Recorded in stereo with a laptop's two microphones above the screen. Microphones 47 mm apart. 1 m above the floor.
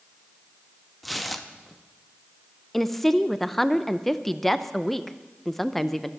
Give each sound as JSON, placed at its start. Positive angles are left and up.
{"t": 1.0, "sound": "tearing paper", "side_deg": 0, "distance_m": 0.6}
{"t": 2.7, "sound": "a woman speaking", "side_deg": 5, "distance_m": 0.6}